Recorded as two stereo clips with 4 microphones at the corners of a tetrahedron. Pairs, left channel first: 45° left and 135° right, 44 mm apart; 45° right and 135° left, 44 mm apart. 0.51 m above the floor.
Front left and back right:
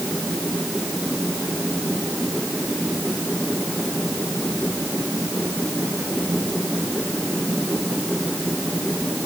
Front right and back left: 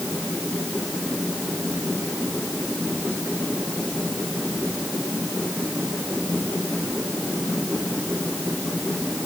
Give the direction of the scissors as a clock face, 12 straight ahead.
I don't hear scissors.